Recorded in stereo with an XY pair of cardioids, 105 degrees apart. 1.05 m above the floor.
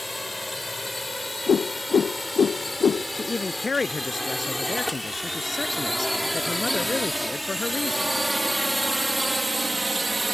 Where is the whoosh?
40° left.